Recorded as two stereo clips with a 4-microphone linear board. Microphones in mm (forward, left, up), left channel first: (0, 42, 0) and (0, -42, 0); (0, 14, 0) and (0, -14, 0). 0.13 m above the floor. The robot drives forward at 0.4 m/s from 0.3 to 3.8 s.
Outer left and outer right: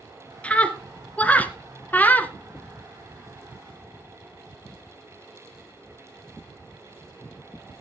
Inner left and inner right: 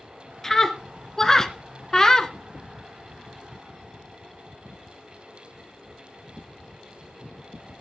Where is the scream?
15° left (ahead or behind), 1.4 m; by 2.3 s 20° left (ahead or behind), 1.1 m.